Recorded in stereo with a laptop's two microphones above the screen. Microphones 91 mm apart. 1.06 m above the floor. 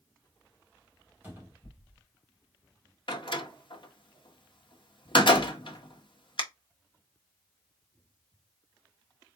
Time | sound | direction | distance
1.2 | a cupboard door | 20° right (ahead or behind) | 2 m
3.1 | a door slam | 60° left (ahead or behind) | 1.0 m